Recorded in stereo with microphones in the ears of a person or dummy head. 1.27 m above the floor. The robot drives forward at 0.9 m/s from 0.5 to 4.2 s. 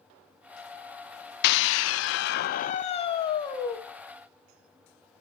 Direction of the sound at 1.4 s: 60° left (ahead or behind).